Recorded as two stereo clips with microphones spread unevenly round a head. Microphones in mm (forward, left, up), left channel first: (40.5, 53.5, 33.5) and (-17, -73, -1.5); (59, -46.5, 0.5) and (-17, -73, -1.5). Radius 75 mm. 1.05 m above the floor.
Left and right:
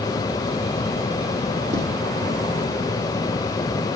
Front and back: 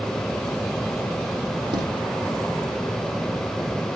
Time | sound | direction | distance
1.7 | footsteps | 160° right | 2.5 m